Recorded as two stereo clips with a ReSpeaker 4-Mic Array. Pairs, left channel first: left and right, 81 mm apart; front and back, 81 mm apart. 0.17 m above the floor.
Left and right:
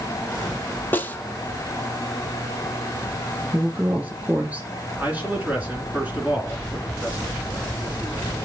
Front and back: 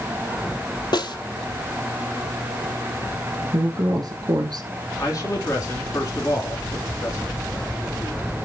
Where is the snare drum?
25° left, 0.8 m.